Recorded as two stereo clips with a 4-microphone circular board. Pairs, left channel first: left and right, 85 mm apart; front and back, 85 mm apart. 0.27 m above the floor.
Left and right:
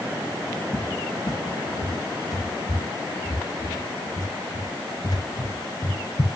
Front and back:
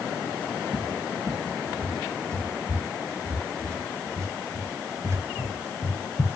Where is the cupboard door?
130° left, 2.5 m.